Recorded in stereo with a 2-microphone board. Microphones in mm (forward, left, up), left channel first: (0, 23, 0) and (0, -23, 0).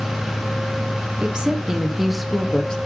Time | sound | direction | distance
1.2 | a woman speaking | 25° right (ahead or behind) | 1.6 m